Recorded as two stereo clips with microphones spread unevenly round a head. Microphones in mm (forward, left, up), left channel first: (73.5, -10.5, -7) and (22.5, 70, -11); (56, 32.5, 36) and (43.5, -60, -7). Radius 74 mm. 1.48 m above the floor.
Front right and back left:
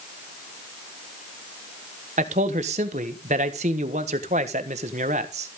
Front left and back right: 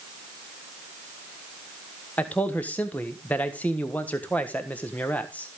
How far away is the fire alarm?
No fire alarm in this recording.